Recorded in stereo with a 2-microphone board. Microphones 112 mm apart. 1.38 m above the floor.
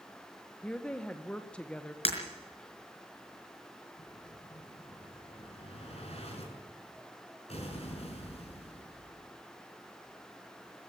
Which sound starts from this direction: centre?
A woman speaking, at 0.6 s.